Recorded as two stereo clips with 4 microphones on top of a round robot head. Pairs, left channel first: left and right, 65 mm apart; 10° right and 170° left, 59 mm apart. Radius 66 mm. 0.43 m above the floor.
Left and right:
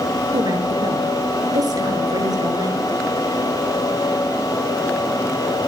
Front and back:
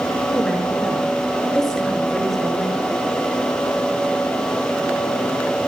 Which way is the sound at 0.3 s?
90° right.